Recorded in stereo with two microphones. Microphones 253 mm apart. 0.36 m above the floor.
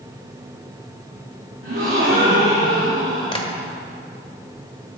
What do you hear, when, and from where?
1.6 s a gasp: 70° right (ahead or behind), 4.5 m
3.3 s tapping: 20° left (ahead or behind), 1.3 m